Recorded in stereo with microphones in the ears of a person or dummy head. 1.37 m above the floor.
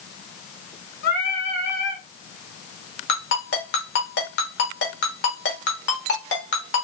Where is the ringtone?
60° left (ahead or behind), 1.3 m.